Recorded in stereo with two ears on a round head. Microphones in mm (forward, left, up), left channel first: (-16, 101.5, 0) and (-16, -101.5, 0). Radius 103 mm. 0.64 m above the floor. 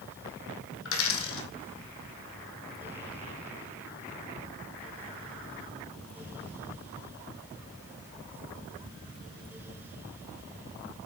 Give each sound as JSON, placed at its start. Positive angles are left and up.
{"t": 0.8, "sound": "a dropped coin", "side_deg": 65, "distance_m": 1.4}